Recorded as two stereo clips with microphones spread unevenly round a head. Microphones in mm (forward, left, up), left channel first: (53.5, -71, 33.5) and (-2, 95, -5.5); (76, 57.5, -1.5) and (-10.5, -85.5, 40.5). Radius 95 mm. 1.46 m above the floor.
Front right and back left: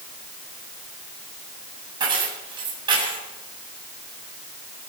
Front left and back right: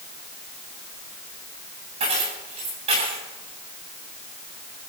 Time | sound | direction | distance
2.0 | keys jangling | straight behind | 8.5 m